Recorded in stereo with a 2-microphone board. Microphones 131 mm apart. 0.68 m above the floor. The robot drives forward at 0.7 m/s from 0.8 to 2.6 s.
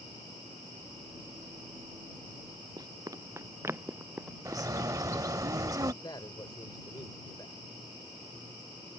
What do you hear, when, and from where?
2.8 s running footsteps: 30° right (ahead or behind); by 5.5 s centre (ahead or behind)
4.5 s a bird: 25° right (ahead or behind)
6.0 s a man speaking: 35° left (ahead or behind)